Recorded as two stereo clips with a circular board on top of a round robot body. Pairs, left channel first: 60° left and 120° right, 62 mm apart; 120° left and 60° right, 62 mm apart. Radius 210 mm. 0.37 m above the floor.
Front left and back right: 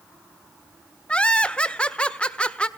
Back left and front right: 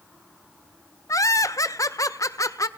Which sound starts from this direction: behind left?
Laughter, at 1.1 s.